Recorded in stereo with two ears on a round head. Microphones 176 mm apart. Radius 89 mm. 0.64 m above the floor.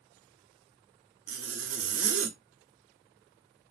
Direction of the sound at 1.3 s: 80° right.